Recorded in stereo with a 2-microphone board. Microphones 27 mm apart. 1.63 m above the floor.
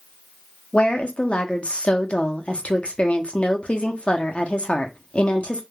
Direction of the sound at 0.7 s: 50° left (ahead or behind).